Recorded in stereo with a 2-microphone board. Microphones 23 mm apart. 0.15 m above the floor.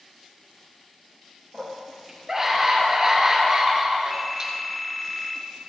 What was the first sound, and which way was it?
A scream, 10° right (ahead or behind).